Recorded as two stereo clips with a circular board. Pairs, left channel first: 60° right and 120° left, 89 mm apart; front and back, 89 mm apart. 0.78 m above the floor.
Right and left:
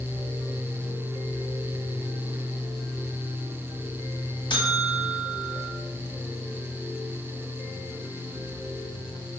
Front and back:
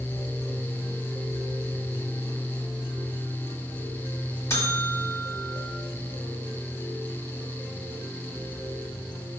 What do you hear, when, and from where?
4.5 s a buzzer: 50° right, 1.1 m